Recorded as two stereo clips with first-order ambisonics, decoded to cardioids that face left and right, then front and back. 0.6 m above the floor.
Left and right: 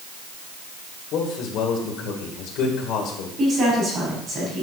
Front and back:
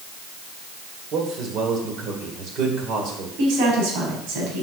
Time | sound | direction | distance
1.1 | a man speaking | 130° left | 2 m
3.4 | a woman speaking | 155° right | 4 m